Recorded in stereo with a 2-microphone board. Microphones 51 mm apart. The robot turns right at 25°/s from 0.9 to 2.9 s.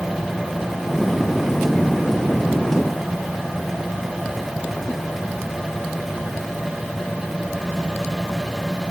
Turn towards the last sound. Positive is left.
No sound to turn to.